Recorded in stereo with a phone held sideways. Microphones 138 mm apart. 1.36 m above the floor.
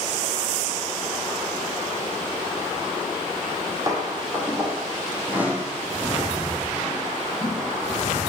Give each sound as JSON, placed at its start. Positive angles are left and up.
{"t": 3.4, "sound": "footsteps", "side_deg": -30, "distance_m": 4.0}